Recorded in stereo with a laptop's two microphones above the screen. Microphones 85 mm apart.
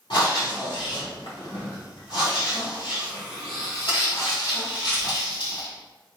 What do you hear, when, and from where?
0.1 s breathing: 65° left (ahead or behind), 1.7 m